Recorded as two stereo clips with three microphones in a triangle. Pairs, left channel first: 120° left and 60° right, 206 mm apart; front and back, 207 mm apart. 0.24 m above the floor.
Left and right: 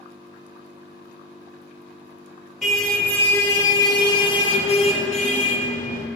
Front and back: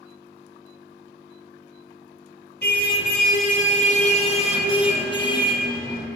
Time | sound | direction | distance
2.6 | a car horn | 30° left | 2.5 m